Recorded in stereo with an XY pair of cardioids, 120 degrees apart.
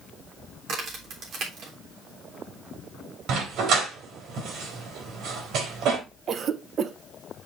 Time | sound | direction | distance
0.7 | a crack | 55° right | 3.5 m
3.3 | a dog barking | 70° right | 3.5 m
6.3 | a cough | 45° right | 1.1 m